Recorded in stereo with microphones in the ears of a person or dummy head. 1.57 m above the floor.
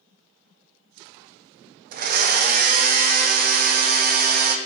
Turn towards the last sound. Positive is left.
turn(degrees=-50)  # may be behind; listen again after turning